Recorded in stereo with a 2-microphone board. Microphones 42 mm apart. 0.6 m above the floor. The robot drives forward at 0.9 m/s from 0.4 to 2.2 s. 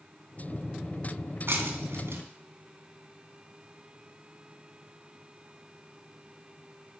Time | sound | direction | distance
1.5 | breaking glass | 70° right (ahead or behind) | 2.5 m